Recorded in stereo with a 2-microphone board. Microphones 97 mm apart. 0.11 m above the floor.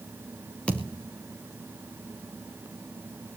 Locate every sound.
0.7 s a thud: 15° left (ahead or behind), 4.5 m